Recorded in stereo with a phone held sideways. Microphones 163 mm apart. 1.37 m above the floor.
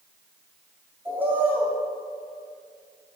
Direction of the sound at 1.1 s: 10° right (ahead or behind).